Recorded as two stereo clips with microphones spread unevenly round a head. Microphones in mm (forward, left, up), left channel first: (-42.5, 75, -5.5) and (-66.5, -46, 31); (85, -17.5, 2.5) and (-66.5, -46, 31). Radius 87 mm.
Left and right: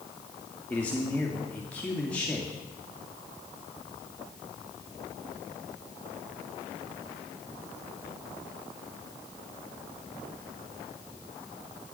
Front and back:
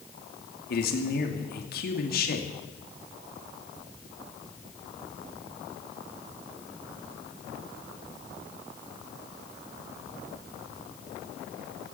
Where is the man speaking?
Straight ahead, 2.5 m.